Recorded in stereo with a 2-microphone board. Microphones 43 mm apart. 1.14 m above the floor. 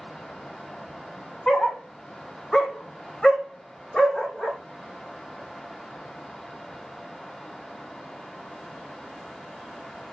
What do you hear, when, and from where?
1.5 s a dog barking: 10° left (ahead or behind), 0.9 m; by 4.6 s 5° left (ahead or behind), 1.2 m